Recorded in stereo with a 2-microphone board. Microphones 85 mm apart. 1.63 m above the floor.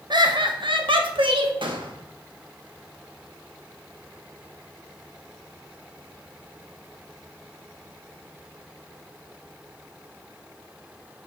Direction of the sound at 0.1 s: 60° right (ahead or behind).